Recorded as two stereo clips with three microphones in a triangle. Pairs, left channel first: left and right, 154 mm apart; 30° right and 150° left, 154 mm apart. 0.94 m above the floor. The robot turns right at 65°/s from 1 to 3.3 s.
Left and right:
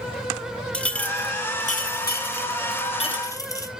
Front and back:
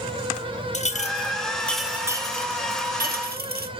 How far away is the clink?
About 0.7 m.